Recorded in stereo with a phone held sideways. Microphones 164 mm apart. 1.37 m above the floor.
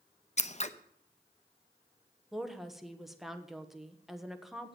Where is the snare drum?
No snare drum in this recording.